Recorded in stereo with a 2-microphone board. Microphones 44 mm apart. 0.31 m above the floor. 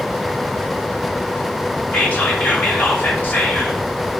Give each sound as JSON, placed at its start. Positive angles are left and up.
{"t": 1.9, "sound": "whispering", "side_deg": 45, "distance_m": 2.5}